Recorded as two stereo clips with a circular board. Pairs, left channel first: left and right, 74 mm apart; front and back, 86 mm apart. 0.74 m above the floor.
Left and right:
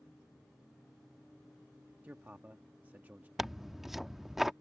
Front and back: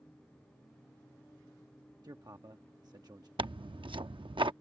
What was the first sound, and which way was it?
A man speaking, 150° right.